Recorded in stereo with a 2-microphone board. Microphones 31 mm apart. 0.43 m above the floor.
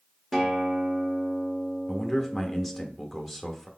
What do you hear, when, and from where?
0.3 s a guitar: 15° right (ahead or behind), 1.3 m
1.9 s a man speaking: 5° left (ahead or behind), 0.8 m